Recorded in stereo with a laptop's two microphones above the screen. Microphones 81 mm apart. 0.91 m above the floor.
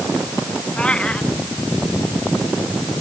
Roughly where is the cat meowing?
Centre.